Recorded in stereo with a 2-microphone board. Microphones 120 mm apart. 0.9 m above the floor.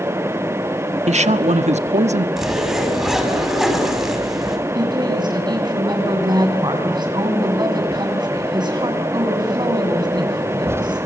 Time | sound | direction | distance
1.1 | a man speaking | 70° right (ahead or behind) | 1.2 m
2.4 | a zipper | 5° right (ahead or behind) | 5.5 m
4.8 | a woman speaking | 35° right (ahead or behind) | 7.5 m